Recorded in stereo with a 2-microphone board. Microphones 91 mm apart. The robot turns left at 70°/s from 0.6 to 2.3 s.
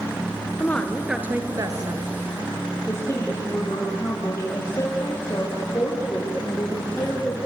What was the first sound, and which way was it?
A woman speaking, 25° left.